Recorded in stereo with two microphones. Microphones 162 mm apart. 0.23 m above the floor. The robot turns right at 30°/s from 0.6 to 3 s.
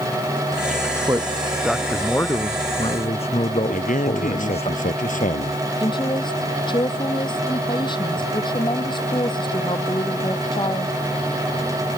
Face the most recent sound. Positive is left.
turn(degrees=30)  # may be behind; listen again after turning